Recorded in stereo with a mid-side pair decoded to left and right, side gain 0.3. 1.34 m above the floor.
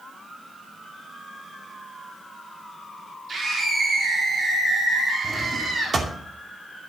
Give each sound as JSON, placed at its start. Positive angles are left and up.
{"t": 3.3, "sound": "a scream", "azimuth_deg": -55, "distance_m": 3.5}
{"t": 5.2, "sound": "a drawer", "azimuth_deg": -50, "distance_m": 2.5}